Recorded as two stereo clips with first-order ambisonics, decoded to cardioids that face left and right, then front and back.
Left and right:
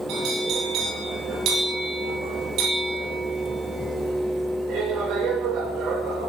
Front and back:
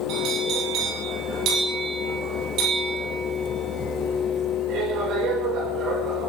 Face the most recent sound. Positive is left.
turn(degrees=-135)